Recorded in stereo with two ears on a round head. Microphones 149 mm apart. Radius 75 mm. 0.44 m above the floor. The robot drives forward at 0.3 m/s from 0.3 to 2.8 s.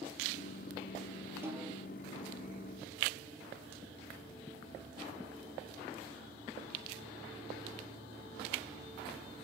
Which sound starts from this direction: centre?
A snare drum, at 1.4 s.